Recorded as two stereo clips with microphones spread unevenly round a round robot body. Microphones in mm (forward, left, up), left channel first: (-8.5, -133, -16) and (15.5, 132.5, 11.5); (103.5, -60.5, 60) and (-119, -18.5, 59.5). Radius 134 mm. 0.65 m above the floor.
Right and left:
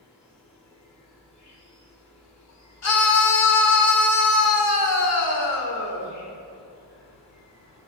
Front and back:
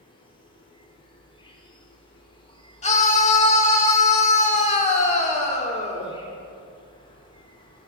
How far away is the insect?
About 1.7 m.